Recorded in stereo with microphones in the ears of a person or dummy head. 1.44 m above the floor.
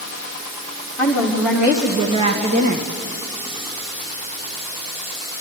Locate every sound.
1.0 s a woman speaking: 5° left (ahead or behind), 1.8 m; by 2.9 s 45° right (ahead or behind), 1.4 m